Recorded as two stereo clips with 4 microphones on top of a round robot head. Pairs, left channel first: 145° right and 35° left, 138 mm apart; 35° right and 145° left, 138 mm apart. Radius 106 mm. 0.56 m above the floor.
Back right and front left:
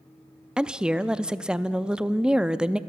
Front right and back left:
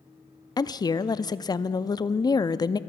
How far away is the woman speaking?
About 0.6 m.